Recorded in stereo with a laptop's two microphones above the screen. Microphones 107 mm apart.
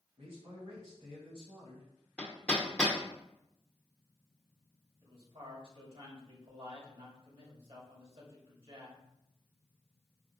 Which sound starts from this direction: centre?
Hammering, at 2.2 s.